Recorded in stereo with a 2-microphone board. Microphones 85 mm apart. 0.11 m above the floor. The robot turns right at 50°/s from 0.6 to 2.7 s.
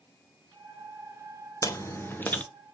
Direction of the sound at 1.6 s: 115° left.